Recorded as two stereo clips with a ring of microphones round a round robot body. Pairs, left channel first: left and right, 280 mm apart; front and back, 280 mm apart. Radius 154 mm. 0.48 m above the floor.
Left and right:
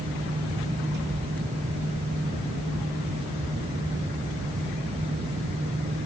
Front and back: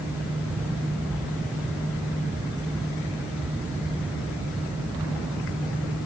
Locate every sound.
Only background noise.